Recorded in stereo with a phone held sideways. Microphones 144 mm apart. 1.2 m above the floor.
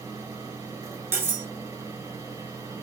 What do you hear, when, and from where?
0.0 s a fan: 25° right (ahead or behind), 3.5 m
1.1 s cutlery clinking: 20° right (ahead or behind), 1.8 m